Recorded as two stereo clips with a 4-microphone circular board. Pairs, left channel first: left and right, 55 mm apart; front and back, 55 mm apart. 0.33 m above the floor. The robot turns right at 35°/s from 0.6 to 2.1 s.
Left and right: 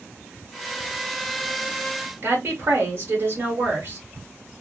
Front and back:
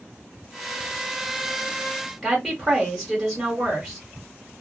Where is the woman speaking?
90° right, 1.3 m.